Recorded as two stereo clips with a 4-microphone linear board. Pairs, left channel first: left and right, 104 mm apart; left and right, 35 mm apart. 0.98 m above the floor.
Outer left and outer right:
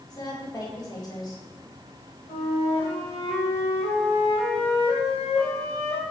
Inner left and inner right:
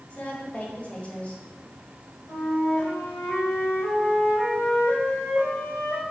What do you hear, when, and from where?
0.1 s a woman speaking: 35° left (ahead or behind), 2.5 m
2.3 s a flute: 75° left (ahead or behind), 3 m